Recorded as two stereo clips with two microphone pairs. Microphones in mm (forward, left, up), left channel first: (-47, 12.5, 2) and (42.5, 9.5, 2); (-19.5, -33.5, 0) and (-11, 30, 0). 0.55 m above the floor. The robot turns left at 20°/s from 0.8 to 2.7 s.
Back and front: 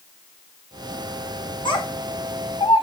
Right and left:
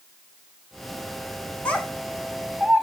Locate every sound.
1.6 s a child speaking: 165° right, 2 m; by 2.8 s 170° left, 2 m